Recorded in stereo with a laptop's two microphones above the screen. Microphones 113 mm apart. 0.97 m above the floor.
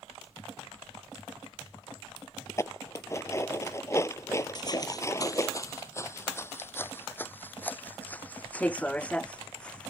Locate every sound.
2.5 s dishes clattering: 25° left (ahead or behind)
4.5 s footsteps: 40° left (ahead or behind); by 9.9 s 10° left (ahead or behind)